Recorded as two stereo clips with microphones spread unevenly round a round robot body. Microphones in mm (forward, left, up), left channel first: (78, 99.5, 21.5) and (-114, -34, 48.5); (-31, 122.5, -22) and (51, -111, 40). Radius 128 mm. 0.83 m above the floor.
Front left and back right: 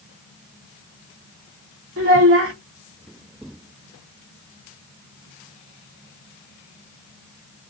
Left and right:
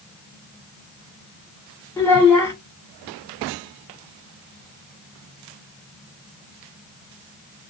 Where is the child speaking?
175° right, 1.9 m.